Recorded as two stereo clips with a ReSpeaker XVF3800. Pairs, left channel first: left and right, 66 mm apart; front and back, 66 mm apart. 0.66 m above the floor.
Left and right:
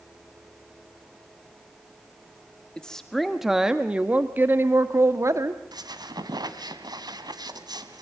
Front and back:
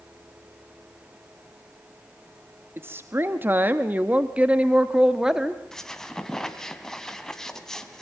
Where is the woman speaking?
160° left, 1.2 m; by 5.6 s 100° right, 1.5 m.